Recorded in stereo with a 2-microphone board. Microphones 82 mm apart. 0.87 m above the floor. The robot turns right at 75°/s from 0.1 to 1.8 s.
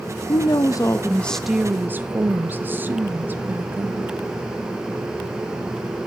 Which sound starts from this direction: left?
A woman speaking, at 0.3 s.